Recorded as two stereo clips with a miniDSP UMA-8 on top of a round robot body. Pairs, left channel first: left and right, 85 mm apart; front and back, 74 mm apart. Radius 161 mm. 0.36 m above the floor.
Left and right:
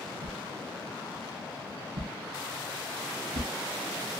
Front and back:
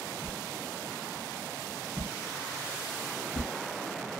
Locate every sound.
0.2 s a whoosh: 65° right, 0.8 m